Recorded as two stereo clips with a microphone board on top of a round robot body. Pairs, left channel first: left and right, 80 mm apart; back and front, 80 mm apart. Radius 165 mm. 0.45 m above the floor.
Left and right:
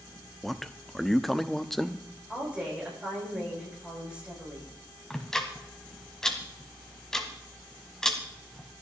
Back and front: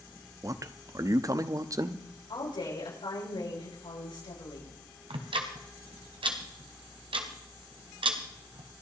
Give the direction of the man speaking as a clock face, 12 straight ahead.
12 o'clock.